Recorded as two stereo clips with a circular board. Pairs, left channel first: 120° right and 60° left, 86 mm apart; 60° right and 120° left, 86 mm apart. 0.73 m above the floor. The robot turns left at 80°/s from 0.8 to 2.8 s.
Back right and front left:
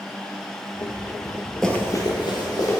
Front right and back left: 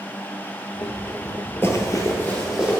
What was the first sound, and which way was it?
Running footsteps, 40° right.